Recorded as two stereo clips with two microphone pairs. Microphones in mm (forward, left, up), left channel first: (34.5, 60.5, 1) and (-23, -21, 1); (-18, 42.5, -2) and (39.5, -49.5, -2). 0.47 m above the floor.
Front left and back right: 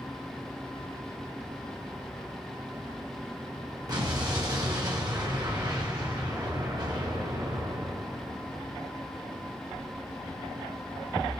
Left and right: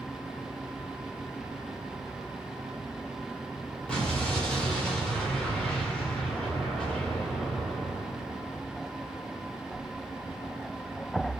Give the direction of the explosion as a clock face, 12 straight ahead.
5 o'clock.